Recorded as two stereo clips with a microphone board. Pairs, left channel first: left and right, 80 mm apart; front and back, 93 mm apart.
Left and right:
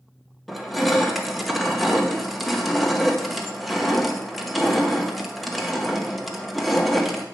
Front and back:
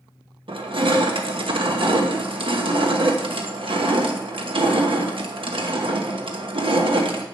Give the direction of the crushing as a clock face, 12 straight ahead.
6 o'clock.